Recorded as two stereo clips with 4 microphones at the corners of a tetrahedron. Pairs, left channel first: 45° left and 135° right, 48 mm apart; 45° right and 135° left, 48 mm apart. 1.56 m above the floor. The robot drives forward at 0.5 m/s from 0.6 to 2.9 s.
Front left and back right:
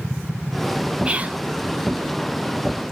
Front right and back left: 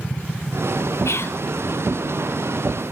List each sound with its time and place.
1.1 s whispering: 65° right, 0.5 m; by 1.4 s 85° right, 0.5 m